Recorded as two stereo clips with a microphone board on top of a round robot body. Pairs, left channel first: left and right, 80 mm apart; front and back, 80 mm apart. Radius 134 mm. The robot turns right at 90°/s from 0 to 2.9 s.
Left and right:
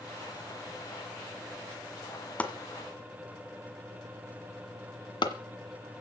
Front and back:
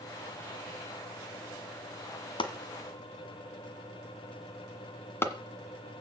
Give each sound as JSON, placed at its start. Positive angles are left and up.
{"t": 2.4, "sound": "chopping", "azimuth_deg": 15, "distance_m": 1.7}